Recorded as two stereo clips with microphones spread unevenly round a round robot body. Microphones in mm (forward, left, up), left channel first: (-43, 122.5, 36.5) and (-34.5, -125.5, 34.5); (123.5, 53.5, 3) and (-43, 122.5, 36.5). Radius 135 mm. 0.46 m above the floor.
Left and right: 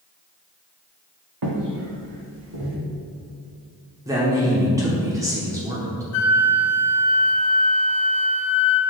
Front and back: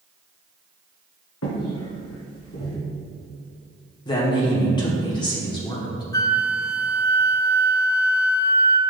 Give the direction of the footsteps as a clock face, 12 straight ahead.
2 o'clock.